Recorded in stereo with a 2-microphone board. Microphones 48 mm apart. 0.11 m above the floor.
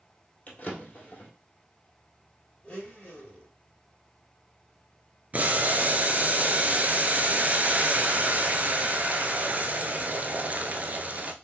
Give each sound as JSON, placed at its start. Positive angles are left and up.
{"t": 0.5, "sound": "a drawer", "side_deg": 35, "distance_m": 2.0}
{"t": 2.6, "sound": "a blender", "side_deg": 25, "distance_m": 2.0}
{"t": 5.3, "sound": "boiling", "side_deg": -35, "distance_m": 0.6}